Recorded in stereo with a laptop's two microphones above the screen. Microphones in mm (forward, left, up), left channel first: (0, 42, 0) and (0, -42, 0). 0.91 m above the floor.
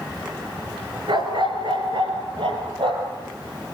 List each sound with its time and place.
1.1 s a dog barking: 70° right (ahead or behind), 3.5 m; by 3.2 s 80° right, 6 m